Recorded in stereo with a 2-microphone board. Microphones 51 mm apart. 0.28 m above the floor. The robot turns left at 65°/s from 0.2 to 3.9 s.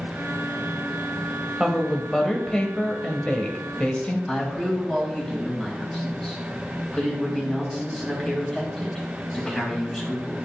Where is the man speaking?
10° left (ahead or behind), 2 m.